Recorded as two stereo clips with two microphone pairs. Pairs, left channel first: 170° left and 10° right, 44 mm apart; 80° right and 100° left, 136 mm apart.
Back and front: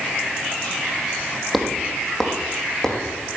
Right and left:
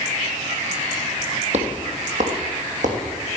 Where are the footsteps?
80° left, 3 m; by 3.0 s 90° left, 4.5 m.